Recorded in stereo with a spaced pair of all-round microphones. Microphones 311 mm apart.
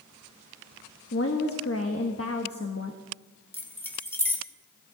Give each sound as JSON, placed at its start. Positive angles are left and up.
{"t": 1.1, "sound": "a woman speaking", "side_deg": 45, "distance_m": 1.1}
{"t": 3.5, "sound": "keys jangling", "side_deg": 5, "distance_m": 1.4}